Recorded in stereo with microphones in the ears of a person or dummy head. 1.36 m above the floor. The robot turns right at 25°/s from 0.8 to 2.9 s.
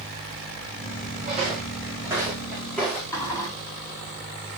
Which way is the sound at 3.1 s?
15° left (ahead or behind).